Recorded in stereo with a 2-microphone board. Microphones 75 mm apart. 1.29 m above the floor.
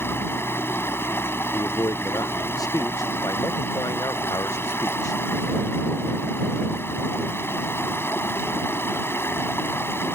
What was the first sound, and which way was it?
Running water, 35° left (ahead or behind).